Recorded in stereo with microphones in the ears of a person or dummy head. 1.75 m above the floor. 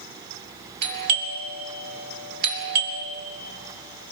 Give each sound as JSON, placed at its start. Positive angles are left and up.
{"t": 0.8, "sound": "a doorbell", "side_deg": -60, "distance_m": 3.0}